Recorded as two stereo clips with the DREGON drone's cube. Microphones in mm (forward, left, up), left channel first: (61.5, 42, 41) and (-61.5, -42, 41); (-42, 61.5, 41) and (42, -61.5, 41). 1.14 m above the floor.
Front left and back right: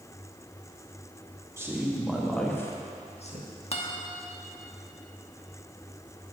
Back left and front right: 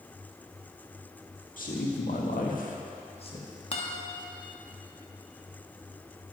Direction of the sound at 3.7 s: 80° left.